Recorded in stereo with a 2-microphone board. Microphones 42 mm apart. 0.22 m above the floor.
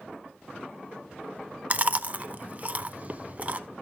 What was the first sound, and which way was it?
Chewing, 35° right (ahead or behind).